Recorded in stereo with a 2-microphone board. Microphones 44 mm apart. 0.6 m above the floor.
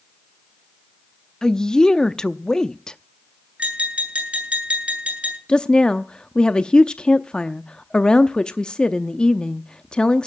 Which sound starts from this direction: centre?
A woman speaking, at 1.4 s.